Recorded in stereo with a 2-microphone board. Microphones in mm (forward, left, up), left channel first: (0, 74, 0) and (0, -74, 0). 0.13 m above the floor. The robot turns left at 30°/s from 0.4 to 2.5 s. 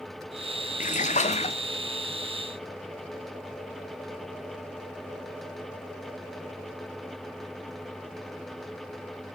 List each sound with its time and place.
0.8 s a splash: 60° left (ahead or behind), 0.6 m; by 1.6 s 45° left (ahead or behind), 0.6 m